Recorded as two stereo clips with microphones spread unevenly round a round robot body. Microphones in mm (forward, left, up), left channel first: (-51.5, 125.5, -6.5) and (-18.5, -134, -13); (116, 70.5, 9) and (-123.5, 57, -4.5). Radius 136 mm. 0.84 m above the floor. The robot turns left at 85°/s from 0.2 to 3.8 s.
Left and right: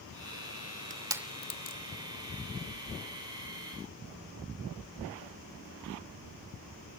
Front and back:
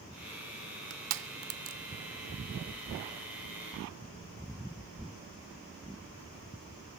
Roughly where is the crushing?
Behind right.